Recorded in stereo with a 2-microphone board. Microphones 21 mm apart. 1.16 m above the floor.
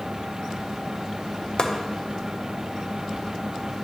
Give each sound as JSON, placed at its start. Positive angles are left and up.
{"t": 1.6, "sound": "chopping", "side_deg": 55, "distance_m": 0.7}